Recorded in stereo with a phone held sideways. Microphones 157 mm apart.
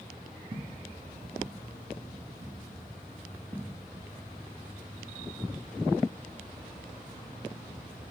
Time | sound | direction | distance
0.5 | footsteps | 25° right (ahead or behind) | 1.7 m